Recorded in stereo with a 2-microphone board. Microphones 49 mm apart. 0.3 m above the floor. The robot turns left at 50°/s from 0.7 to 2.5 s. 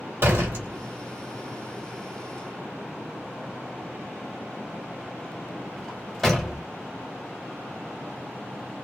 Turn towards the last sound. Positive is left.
turn(degrees=10)  # may be behind; listen again after turning